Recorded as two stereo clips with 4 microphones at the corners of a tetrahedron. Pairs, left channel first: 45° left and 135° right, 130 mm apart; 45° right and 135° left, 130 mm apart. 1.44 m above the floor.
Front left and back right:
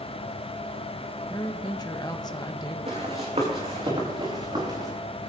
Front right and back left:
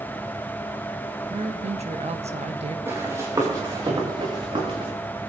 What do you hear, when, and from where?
1.3 s a woman speaking: 105° left, 1.3 m
2.9 s running footsteps: 160° right, 4.5 m; by 4.9 s 175° left, 6 m